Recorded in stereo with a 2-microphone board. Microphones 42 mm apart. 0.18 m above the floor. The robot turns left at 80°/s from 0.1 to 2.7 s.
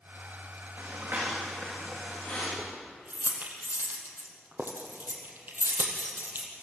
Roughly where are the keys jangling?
Right.